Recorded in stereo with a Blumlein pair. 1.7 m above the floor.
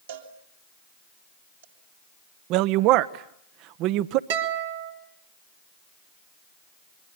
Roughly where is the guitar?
Ahead right.